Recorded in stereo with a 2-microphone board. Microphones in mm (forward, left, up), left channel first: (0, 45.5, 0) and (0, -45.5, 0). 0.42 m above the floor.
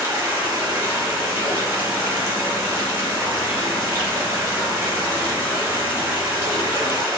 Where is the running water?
35° right (ahead or behind), 1.9 m.